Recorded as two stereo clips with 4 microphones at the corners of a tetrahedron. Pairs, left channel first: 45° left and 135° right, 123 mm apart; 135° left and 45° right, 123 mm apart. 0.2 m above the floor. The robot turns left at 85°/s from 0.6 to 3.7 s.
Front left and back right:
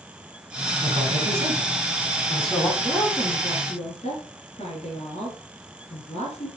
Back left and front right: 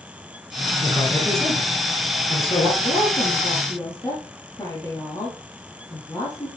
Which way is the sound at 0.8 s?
95° right.